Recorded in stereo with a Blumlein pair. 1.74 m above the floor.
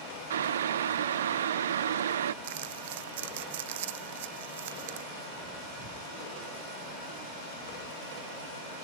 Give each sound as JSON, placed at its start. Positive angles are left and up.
{"t": 0.3, "sound": "boiling", "azimuth_deg": -65}
{"t": 2.4, "sound": "crumpling", "azimuth_deg": -55}